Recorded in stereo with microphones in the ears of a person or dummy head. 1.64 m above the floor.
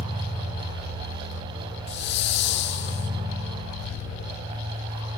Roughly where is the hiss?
Left.